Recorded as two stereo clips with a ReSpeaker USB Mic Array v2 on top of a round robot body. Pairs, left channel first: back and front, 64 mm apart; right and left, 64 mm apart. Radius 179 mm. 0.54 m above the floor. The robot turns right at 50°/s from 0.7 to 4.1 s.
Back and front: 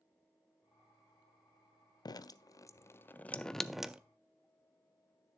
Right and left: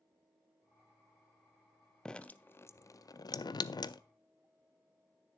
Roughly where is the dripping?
Behind.